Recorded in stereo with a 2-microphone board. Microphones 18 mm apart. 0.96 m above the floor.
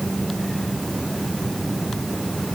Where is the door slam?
I don't hear a door slam.